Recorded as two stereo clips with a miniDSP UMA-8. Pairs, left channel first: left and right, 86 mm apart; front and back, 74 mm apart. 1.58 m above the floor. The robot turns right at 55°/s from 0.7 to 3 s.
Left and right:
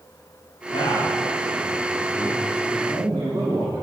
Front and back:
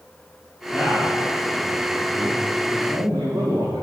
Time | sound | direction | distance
0.7 | a man speaking | 100° left | 1.2 m